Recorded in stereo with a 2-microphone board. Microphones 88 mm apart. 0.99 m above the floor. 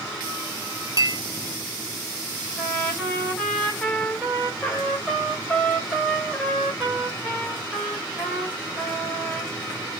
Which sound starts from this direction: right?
A clink, at 1.0 s.